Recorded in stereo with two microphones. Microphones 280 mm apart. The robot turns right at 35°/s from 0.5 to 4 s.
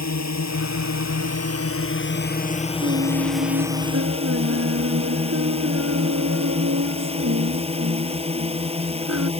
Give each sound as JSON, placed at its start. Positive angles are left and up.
{"t": 0.0, "sound": "a drone", "azimuth_deg": 80}
{"t": 2.8, "sound": "singing", "azimuth_deg": -135}